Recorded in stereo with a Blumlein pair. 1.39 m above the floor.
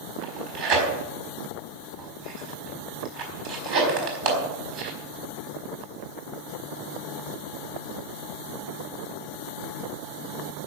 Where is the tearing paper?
45° right, 4.5 m.